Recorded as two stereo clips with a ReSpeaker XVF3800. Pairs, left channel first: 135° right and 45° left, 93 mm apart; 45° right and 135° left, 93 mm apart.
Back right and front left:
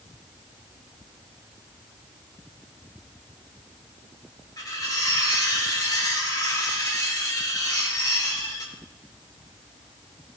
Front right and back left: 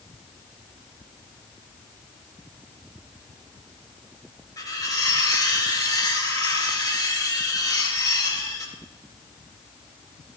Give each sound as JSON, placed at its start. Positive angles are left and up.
{"t": 4.6, "sound": "cutlery clinking", "azimuth_deg": -90, "distance_m": 3.0}